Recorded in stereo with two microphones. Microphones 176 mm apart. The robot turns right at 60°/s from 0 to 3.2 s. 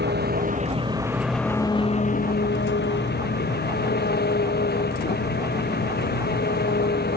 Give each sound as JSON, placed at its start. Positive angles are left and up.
{"t": 0.0, "sound": "an engine running", "azimuth_deg": -80}